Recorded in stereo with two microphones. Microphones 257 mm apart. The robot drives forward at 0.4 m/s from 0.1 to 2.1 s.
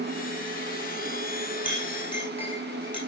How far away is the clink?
About 5.5 m.